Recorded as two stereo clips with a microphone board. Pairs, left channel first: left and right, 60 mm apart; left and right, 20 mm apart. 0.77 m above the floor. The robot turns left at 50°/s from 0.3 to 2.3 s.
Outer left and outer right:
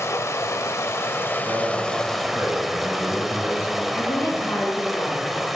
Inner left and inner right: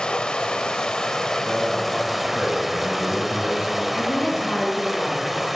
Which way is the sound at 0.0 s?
95° left.